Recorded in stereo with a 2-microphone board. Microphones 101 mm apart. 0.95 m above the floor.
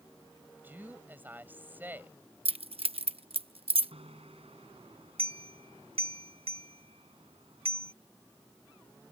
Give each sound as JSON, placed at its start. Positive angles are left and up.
{"t": 0.6, "sound": "a woman speaking", "side_deg": -20}
{"t": 2.5, "sound": "keys jangling", "side_deg": -75}
{"t": 3.9, "sound": "a bicycle bell", "side_deg": -80}